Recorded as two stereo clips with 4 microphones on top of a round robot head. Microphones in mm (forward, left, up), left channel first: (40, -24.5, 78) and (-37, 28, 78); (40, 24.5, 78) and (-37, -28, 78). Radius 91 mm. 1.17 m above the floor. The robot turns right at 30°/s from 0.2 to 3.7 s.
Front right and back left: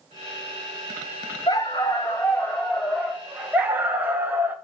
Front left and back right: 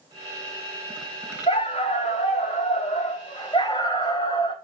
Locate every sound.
1.5 s a dog barking: 10° left, 0.7 m; by 4.5 s 80° left, 0.7 m